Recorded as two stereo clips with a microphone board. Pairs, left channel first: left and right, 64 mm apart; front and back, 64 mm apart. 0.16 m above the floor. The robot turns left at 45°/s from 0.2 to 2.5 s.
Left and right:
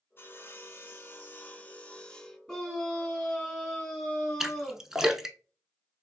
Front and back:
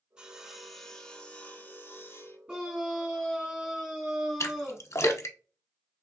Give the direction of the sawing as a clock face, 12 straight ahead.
8 o'clock.